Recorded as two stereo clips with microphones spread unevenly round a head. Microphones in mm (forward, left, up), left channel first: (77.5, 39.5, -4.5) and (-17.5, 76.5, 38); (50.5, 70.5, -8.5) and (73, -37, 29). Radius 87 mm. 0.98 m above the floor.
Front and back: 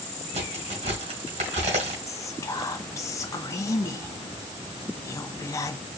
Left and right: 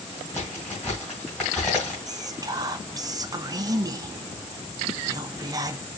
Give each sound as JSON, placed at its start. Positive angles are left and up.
{"t": 0.3, "sound": "a crack", "azimuth_deg": -175, "distance_m": 2.5}
{"t": 2.1, "sound": "whispering", "azimuth_deg": -15, "distance_m": 0.9}